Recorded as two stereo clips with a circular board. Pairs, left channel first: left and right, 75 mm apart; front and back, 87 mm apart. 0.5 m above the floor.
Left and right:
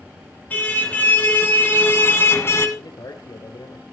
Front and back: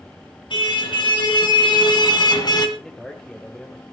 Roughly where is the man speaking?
Left.